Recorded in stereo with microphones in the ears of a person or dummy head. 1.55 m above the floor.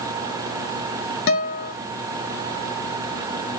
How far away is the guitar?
About 0.8 m.